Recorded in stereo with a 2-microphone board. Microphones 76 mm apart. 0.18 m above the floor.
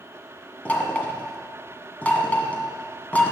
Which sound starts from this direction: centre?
Knocking, at 0.7 s.